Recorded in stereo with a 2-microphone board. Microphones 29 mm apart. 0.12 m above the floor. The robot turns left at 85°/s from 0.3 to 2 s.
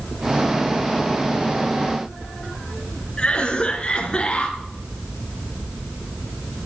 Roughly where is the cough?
Left.